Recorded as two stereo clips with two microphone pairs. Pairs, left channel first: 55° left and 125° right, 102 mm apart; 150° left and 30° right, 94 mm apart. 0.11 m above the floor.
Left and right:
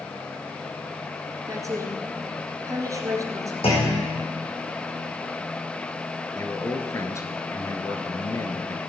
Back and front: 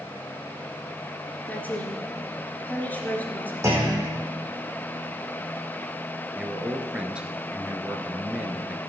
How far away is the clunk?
About 4 m.